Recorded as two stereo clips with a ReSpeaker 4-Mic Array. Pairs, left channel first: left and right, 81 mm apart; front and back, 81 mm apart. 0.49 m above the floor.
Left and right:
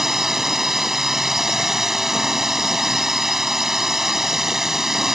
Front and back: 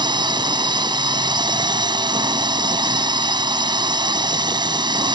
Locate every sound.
0.0 s a drone: 175° right